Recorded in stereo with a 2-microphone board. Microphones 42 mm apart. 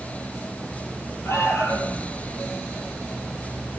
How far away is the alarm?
About 9 m.